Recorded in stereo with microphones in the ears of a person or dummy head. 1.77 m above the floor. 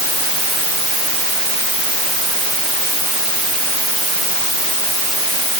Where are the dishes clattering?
No dishes clattering in this recording.